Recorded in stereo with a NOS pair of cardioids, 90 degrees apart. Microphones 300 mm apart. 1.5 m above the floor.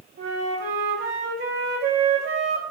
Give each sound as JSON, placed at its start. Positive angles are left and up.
{"t": 0.2, "sound": "a flute", "azimuth_deg": -45, "distance_m": 2.5}